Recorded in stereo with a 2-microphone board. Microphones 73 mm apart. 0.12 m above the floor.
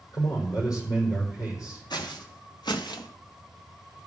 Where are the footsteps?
80° left, 2 m; by 3.1 s 70° left (ahead or behind), 1.3 m.